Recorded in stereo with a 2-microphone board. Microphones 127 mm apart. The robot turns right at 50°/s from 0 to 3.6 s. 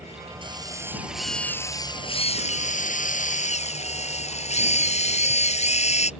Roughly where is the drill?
Ahead right.